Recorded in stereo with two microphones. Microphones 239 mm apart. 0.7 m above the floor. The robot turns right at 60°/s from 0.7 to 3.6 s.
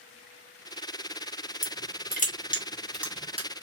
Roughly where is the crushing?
Left.